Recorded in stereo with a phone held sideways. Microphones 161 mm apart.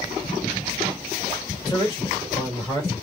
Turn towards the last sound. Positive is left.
turn(degrees=25)  # may be behind; listen again after turning